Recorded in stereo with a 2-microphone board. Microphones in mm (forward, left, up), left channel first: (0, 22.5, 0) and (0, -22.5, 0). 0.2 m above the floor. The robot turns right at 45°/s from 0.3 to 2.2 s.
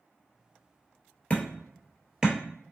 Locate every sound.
1.3 s hammering: 25° left (ahead or behind), 0.9 m; by 2.4 s 15° right (ahead or behind), 0.9 m